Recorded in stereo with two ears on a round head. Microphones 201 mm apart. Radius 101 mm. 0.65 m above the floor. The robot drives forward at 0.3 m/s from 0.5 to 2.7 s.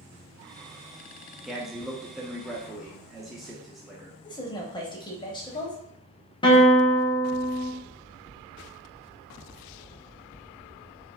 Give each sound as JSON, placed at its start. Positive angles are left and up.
{"t": 1.4, "sound": "a man speaking", "side_deg": 0, "distance_m": 0.6}
{"t": 4.2, "sound": "a woman speaking", "side_deg": 20, "distance_m": 0.7}
{"t": 6.4, "sound": "a guitar", "side_deg": 20, "distance_m": 0.8}